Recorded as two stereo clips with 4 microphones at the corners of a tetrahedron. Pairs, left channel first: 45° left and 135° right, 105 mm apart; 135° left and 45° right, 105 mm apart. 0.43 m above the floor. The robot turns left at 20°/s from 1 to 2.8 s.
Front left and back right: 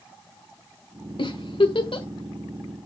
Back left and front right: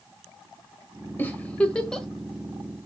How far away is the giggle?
About 1.4 m.